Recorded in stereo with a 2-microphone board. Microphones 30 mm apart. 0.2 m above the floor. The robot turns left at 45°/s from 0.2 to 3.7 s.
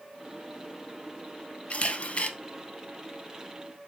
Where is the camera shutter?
40° left (ahead or behind), 0.5 m; by 2.3 s 45° left (ahead or behind), 0.5 m.